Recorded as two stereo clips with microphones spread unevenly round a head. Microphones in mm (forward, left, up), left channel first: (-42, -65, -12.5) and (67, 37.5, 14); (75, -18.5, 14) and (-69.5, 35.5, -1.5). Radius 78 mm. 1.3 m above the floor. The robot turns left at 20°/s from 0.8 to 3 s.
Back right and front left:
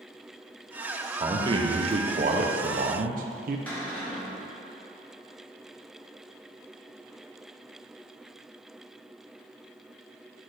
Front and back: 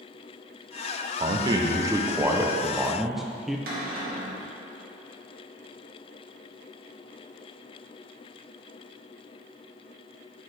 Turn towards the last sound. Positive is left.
turn(degrees=145)